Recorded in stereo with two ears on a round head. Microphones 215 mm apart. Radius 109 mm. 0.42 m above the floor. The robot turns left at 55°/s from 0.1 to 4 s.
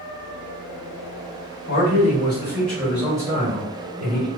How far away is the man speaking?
About 1.8 m.